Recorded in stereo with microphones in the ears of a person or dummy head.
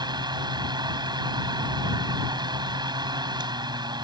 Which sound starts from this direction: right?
A fan, at 0.0 s.